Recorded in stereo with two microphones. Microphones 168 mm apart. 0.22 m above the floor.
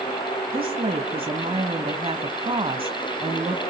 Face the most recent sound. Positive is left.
turn(degrees=-35)  # may be behind; listen again after turning